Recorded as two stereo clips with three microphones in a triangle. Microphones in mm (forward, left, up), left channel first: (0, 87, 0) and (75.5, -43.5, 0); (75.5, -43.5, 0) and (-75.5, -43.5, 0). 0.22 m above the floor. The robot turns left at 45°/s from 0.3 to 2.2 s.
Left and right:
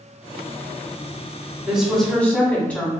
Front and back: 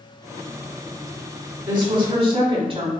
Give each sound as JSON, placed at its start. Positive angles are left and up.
{"t": 1.7, "sound": "a woman speaking", "azimuth_deg": -140, "distance_m": 1.4}